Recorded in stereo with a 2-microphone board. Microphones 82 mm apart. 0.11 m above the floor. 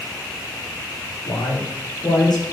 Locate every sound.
1.2 s a man speaking: 65° left (ahead or behind), 9 m; by 2.4 s 60° left (ahead or behind), 8.5 m